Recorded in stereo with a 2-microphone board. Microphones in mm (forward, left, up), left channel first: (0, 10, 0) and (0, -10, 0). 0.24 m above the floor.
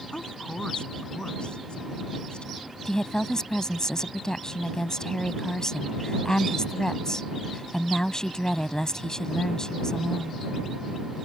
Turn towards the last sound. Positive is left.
turn(degrees=35)  # may be behind; listen again after turning